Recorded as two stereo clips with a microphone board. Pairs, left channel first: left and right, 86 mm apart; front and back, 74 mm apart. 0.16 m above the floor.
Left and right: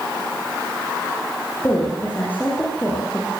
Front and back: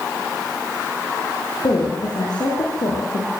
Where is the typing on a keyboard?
I don't hear typing on a keyboard.